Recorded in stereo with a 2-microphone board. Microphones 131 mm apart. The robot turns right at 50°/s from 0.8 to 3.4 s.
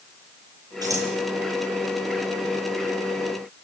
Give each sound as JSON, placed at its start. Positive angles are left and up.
{"t": 0.8, "sound": "scissors", "side_deg": -30, "distance_m": 8.5}